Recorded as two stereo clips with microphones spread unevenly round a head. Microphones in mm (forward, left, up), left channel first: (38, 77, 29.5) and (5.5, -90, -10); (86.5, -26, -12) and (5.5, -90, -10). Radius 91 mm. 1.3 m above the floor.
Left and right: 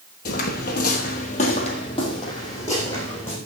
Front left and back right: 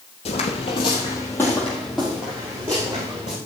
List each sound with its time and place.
0.2 s footsteps: 65° left, 2.5 m; by 3.4 s 155° left, 4.5 m